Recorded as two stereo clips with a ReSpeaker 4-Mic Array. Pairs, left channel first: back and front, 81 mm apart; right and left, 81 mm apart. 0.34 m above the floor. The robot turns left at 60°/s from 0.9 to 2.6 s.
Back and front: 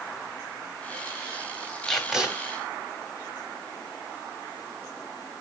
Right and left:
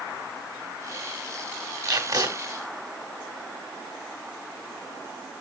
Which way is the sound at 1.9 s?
100° left.